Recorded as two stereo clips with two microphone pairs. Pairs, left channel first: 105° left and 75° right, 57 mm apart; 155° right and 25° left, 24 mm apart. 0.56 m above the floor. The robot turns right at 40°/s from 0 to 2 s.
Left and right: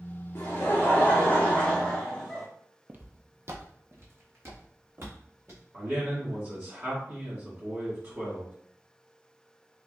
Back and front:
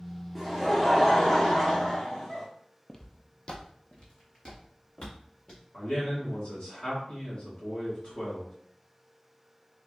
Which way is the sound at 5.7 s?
120° right.